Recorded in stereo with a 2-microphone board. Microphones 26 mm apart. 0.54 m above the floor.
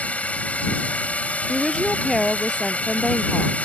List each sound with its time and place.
0.0 s a drone: 65° left (ahead or behind)
1.5 s a woman speaking: 10° left (ahead or behind)